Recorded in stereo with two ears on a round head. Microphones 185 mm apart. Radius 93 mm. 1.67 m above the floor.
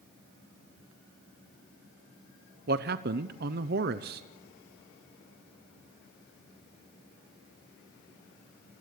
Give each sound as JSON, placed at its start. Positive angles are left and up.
{"t": 2.7, "sound": "a man speaking", "side_deg": -50, "distance_m": 0.7}